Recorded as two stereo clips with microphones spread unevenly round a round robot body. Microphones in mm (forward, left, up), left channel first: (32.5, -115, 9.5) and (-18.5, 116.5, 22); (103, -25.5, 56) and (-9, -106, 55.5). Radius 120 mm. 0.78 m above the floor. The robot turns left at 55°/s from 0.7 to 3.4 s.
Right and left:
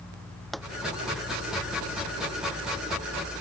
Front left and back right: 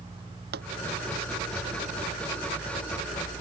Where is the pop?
165° right.